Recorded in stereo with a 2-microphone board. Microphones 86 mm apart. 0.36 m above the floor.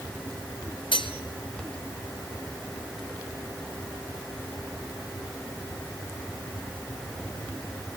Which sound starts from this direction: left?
Cutlery clinking, at 0.9 s.